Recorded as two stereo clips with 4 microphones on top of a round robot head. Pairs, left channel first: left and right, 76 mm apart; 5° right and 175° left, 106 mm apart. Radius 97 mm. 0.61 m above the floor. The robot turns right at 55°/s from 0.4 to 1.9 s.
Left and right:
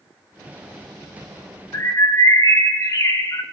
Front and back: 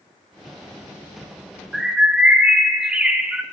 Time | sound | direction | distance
1.7 | a bird | 90° left | 1.1 m